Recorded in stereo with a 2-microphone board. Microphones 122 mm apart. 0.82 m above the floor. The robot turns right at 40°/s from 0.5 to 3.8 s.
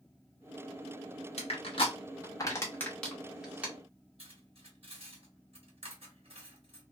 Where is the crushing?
60° left (ahead or behind), 1.0 m; by 3.7 s 15° right (ahead or behind), 1.0 m.